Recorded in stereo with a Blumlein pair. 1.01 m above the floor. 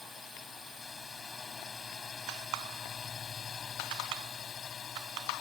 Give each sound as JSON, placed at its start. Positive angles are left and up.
{"t": 0.0, "sound": "a drone", "azimuth_deg": 15}